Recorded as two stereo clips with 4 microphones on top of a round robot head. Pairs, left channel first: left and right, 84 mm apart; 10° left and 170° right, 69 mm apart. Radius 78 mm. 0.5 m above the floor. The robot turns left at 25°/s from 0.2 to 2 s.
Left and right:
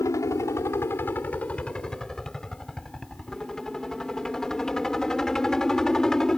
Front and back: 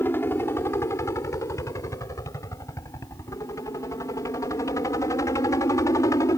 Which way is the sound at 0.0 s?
55° left.